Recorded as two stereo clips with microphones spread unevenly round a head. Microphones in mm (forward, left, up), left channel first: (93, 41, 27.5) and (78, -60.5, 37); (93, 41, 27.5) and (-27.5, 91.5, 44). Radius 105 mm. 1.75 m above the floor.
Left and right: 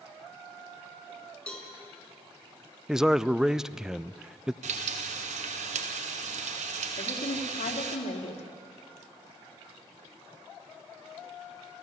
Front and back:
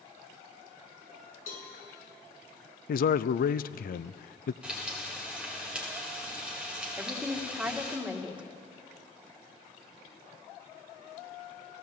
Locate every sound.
1.5 s a cowbell: straight ahead, 5.5 m
2.9 s a man speaking: 15° right, 0.5 m
4.6 s frying: 120° right, 1.2 m
7.0 s a woman speaking: 75° left, 2.5 m